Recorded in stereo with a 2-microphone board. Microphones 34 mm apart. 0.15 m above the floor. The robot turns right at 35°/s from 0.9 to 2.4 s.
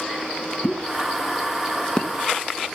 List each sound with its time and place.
0.6 s a pop: 30° left (ahead or behind), 1.0 m; by 2.1 s 25° left (ahead or behind), 1.0 m